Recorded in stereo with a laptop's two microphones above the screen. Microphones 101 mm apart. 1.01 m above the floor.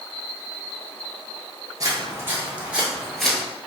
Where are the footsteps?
35° right (ahead or behind), 1.2 m; by 3.4 s 5° left (ahead or behind), 1.2 m.